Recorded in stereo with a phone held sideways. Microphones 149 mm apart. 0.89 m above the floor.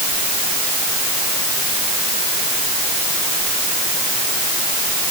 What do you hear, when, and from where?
Only background noise.